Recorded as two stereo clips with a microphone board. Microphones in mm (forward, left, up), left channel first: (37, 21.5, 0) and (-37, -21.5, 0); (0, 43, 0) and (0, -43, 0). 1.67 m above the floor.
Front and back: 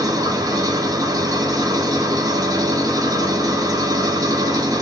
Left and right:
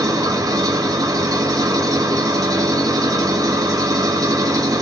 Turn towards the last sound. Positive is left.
turn(degrees=-120)